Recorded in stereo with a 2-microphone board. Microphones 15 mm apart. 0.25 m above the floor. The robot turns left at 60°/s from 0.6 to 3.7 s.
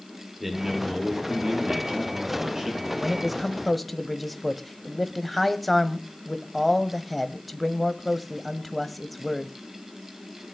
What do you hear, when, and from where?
0.4 s a man speaking: 15° right, 6.5 m; by 2.9 s 155° right, 6.5 m
3.0 s a man speaking: 15° right (ahead or behind), 1.2 m; by 9.5 s 5° left (ahead or behind), 1.2 m